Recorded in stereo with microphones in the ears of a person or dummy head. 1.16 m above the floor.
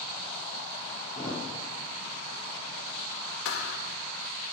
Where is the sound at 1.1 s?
5° left (ahead or behind), 4.5 m.